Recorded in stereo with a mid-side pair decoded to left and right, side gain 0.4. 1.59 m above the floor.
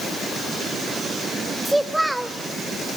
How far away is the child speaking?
About 2.5 m.